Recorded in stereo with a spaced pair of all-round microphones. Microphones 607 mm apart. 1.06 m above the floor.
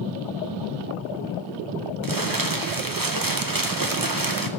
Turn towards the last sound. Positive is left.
turn(degrees=-35)  # may be behind; listen again after turning